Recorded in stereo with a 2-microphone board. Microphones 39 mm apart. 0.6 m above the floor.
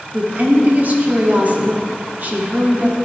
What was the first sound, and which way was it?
A woman speaking, 45° right (ahead or behind).